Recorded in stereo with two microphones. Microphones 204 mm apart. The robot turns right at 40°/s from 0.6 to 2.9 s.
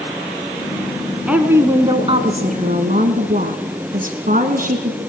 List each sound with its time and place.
1.3 s a woman speaking: 175° right, 1.8 m; by 5.0 s 110° right, 1.8 m